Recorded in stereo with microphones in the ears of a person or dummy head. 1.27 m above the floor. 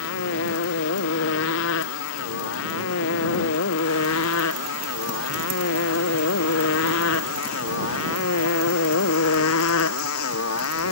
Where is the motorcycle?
70° left (ahead or behind); by 10.9 s 75° left (ahead or behind).